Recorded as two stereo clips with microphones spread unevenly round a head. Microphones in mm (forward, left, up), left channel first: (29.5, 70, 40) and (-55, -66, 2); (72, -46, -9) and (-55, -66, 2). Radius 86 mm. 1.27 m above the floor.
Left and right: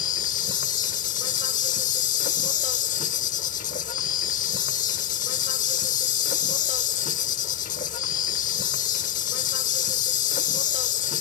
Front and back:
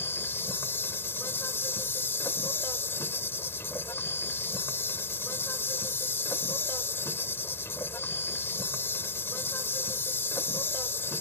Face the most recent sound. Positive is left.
turn(degrees=85)